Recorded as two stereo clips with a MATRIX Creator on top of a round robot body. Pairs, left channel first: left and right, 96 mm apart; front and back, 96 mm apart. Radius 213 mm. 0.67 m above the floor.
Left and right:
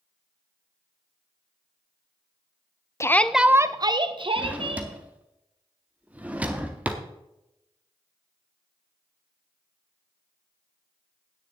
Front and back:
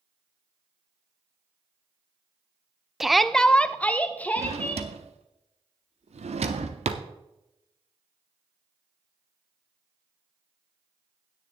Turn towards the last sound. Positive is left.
turn(degrees=-165)